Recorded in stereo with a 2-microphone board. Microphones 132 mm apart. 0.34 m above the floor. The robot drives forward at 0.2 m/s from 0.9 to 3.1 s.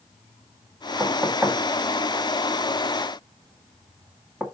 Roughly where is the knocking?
Centre.